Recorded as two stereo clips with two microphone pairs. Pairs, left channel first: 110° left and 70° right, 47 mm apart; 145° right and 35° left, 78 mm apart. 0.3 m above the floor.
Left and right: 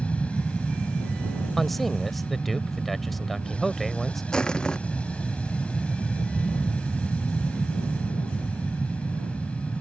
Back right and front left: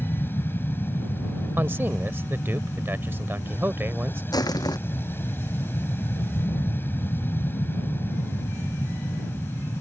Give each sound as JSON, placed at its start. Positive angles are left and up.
{"t": 0.0, "sound": "an aircraft", "azimuth_deg": 165}
{"t": 1.6, "sound": "a man speaking", "azimuth_deg": 20}
{"t": 4.3, "sound": "crushing", "azimuth_deg": 180}